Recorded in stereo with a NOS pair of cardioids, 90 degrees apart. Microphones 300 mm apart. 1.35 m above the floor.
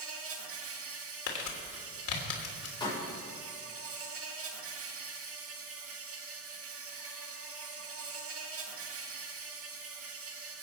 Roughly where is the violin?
I don't hear a violin.